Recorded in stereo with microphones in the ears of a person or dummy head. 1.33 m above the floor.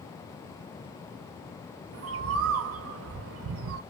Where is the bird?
70° right (ahead or behind), 0.5 m.